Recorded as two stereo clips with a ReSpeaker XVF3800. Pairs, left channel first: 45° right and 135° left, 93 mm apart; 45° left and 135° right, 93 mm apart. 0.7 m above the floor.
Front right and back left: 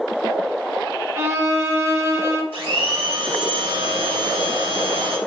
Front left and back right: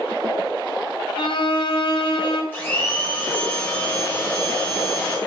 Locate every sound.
1.2 s a violin: 75° left, 0.6 m
2.5 s a blender: 115° left, 1.2 m